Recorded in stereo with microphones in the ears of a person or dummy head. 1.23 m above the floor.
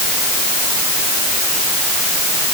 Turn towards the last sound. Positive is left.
No sound to turn to.